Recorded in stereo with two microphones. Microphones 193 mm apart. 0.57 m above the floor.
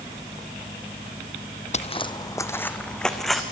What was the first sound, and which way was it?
Footsteps, 35° left (ahead or behind).